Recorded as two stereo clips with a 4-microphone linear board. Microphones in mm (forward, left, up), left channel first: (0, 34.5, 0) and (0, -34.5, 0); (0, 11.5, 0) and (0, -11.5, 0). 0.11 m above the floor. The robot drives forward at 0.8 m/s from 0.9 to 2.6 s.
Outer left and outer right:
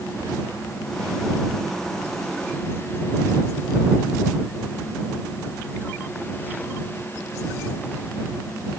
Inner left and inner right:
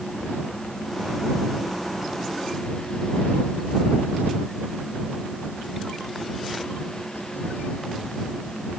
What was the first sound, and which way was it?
Only background noise.